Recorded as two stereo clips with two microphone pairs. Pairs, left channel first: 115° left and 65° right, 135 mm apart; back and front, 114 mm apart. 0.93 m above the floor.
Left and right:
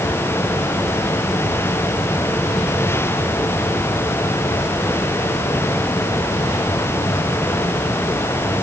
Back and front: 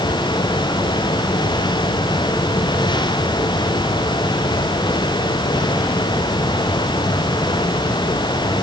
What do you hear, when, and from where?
Only background noise.